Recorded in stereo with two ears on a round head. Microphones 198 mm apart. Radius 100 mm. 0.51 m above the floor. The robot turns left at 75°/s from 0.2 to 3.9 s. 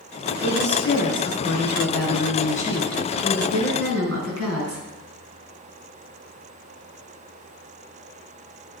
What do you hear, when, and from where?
0.4 s a woman speaking: 165° right, 4.5 m; by 4.8 s 65° right, 4.5 m